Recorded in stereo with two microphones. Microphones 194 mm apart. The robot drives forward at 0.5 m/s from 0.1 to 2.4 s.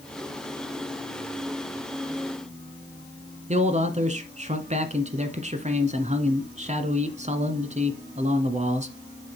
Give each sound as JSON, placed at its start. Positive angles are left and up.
{"t": 3.5, "sound": "a man speaking", "side_deg": -35, "distance_m": 1.5}